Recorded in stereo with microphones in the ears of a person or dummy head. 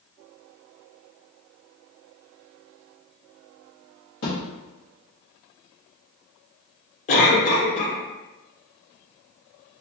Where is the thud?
50° left (ahead or behind), 0.9 m.